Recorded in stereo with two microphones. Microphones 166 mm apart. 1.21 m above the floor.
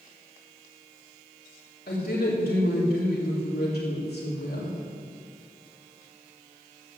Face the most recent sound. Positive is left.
turn(degrees=75)  # may be behind; listen again after turning